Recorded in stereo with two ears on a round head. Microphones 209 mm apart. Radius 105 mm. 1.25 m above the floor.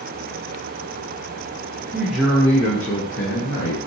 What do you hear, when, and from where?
1.9 s a man speaking: 10° right (ahead or behind), 0.7 m; by 3.9 s 55° left (ahead or behind), 1.4 m